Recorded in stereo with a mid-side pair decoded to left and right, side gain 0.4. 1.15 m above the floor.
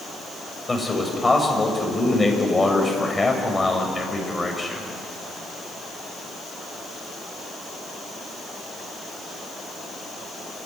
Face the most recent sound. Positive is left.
turn(degrees=20)